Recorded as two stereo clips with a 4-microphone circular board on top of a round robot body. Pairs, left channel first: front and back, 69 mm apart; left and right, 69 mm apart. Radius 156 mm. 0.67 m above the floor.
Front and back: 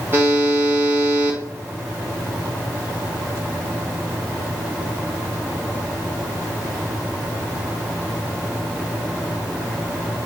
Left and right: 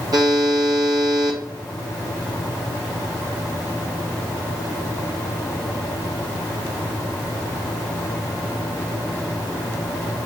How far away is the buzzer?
About 1.0 m.